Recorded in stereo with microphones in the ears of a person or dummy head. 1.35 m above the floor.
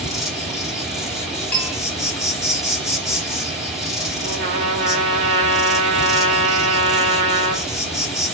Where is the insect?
Centre (ahead or behind), 3.5 m.